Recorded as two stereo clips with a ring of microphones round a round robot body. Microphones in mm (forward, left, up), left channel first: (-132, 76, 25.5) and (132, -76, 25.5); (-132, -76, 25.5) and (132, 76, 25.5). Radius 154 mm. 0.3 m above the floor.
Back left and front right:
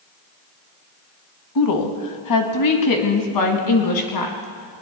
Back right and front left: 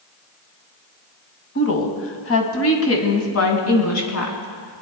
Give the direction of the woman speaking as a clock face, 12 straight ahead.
7 o'clock.